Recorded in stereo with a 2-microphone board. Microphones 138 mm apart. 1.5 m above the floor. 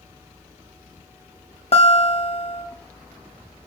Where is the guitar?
45° left (ahead or behind), 0.8 m.